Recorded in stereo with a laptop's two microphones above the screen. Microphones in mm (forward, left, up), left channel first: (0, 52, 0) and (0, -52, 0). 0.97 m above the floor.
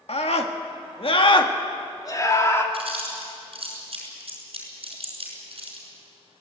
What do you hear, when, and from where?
0.1 s a scream: 75° left (ahead or behind), 1.8 m; by 2.6 s 25° left (ahead or behind), 2.5 m
2.7 s chewing: 60° right (ahead or behind), 5 m